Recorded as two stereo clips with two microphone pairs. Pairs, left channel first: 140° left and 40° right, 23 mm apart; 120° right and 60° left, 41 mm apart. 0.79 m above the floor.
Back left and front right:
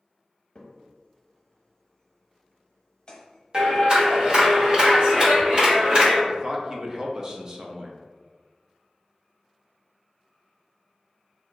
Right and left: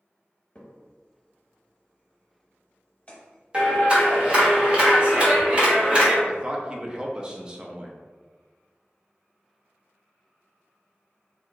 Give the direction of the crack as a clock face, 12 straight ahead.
6 o'clock.